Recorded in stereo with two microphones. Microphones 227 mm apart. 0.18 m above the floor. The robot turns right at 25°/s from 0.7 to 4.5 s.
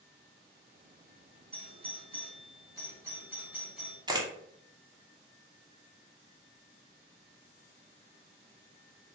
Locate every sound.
1.5 s a doorbell: 25° right (ahead or behind), 1.7 m; by 4.0 s centre (ahead or behind), 1.7 m
4.1 s a camera shutter: 20° right (ahead or behind), 0.6 m; by 4.3 s 15° right (ahead or behind), 0.6 m